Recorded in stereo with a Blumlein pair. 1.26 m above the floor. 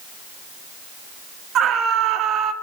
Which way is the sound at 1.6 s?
30° right.